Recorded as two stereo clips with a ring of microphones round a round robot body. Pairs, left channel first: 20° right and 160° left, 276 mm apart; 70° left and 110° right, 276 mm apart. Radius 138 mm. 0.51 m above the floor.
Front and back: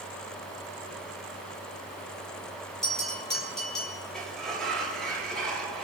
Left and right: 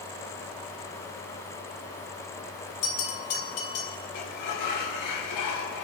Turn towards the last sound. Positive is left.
turn(degrees=65)